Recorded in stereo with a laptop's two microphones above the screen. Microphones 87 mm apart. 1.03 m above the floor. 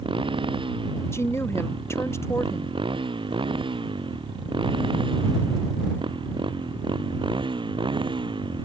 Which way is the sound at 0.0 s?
80° right.